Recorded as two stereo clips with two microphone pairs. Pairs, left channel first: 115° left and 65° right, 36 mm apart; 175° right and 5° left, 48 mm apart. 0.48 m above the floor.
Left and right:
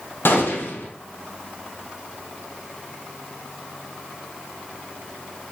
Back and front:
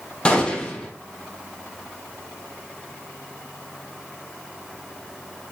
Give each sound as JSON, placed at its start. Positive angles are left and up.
{"t": 0.2, "sound": "a gunshot", "azimuth_deg": 120, "distance_m": 3.5}